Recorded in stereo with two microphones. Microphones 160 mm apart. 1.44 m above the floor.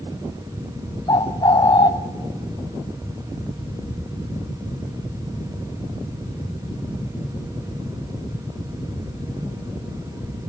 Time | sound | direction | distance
1.1 | a bird | 25° left (ahead or behind) | 0.6 m